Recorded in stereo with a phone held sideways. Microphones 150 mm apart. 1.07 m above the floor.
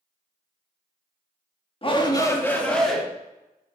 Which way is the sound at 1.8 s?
40° left (ahead or behind).